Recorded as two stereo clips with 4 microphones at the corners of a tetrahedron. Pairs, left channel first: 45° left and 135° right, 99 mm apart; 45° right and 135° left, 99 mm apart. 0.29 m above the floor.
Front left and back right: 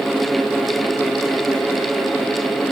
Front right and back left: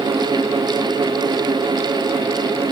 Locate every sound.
Only background noise.